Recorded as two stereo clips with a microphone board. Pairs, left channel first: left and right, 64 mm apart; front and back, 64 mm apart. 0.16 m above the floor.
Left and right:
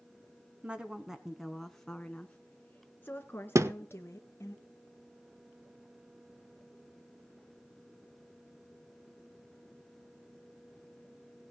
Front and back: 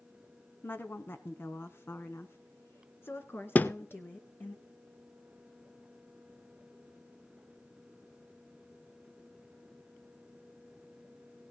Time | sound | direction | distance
0.6 | a woman speaking | 30° right | 1.3 m
3.5 | a thud | 60° right | 0.6 m